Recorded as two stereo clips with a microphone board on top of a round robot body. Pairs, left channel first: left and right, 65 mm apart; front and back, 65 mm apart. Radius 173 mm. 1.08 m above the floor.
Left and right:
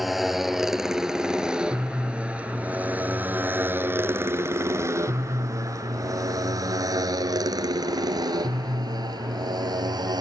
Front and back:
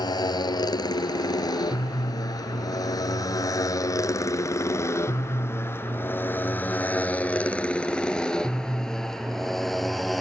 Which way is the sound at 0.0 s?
Straight ahead.